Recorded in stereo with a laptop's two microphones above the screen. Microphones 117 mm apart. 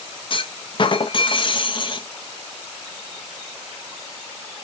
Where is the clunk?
45° left (ahead or behind), 0.6 m.